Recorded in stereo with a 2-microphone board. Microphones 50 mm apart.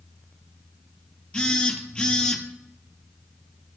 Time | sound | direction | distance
1.3 | a phone buzzing | 20° left (ahead or behind) | 1.1 m